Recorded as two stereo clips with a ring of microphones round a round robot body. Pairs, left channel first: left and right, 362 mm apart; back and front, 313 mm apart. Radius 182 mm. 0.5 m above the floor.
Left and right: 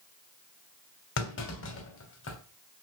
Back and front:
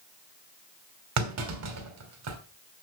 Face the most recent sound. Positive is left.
turn(degrees=35)